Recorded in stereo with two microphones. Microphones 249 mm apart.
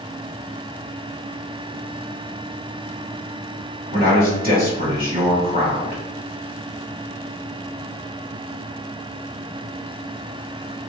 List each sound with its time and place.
3.9 s a man speaking: 35° right (ahead or behind), 1.8 m